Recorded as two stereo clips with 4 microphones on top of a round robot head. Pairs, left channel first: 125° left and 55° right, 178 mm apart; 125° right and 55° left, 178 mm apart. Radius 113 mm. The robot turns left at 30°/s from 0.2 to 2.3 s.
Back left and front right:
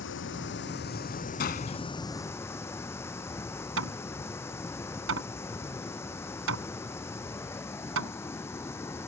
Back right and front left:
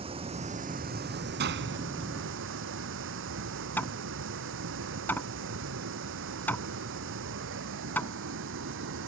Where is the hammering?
45° right.